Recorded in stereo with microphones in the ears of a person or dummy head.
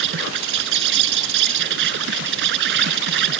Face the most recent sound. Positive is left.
turn(degrees=-70)  # may be behind; listen again after turning